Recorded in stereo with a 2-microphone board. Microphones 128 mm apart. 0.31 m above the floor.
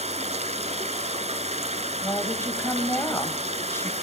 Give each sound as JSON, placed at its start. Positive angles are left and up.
{"t": 0.0, "sound": "running water", "side_deg": -60, "distance_m": 1.3}
{"t": 2.0, "sound": "a woman speaking", "side_deg": 20, "distance_m": 1.5}